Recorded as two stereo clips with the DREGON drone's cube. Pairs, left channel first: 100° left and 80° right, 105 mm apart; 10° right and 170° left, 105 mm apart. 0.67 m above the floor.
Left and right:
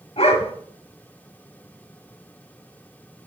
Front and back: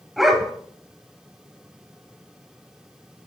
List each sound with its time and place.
0.2 s a dog barking: 80° left, 1.1 m